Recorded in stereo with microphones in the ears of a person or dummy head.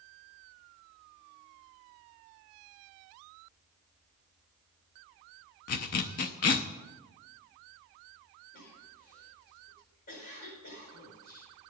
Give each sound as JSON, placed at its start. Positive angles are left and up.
{"t": 5.7, "sound": "a zipper", "side_deg": 45, "distance_m": 0.5}
{"t": 8.5, "sound": "a cough", "side_deg": 50, "distance_m": 4.5}